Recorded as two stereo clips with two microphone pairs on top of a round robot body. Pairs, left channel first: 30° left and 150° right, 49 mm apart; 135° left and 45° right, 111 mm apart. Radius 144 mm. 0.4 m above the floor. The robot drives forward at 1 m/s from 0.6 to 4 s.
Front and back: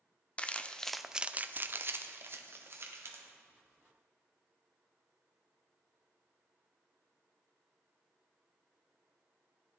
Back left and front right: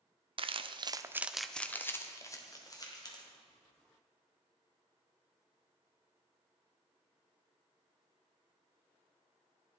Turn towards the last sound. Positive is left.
turn(degrees=-170)